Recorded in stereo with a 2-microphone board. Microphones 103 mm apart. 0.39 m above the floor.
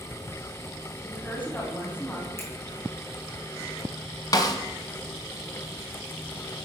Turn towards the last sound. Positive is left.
turn(degrees=35)  # may be behind; listen again after turning